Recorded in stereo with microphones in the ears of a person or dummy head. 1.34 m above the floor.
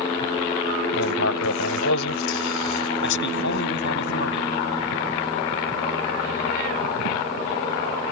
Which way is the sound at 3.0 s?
75° left (ahead or behind).